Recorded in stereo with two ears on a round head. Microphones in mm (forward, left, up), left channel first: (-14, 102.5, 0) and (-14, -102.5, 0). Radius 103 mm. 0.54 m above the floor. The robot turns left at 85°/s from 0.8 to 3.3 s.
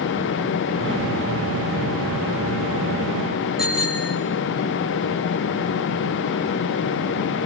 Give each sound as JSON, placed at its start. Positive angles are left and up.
{"t": 3.6, "sound": "a bicycle bell", "side_deg": -5, "distance_m": 5.5}